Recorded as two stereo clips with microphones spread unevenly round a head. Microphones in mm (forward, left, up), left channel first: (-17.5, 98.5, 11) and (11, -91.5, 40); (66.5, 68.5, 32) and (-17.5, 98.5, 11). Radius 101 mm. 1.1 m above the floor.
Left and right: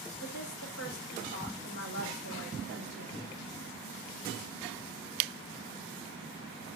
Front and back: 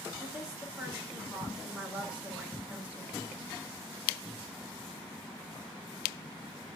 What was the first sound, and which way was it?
A woman speaking, 85° left.